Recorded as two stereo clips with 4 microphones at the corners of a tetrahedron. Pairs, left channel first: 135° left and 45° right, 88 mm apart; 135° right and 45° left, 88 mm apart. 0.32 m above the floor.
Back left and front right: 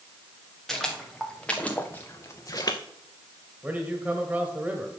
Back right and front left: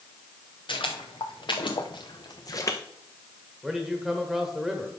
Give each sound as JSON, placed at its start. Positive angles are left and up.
{"t": 0.7, "sound": "footsteps", "azimuth_deg": -140, "distance_m": 2.5}
{"t": 3.6, "sound": "a man speaking", "azimuth_deg": -25, "distance_m": 1.2}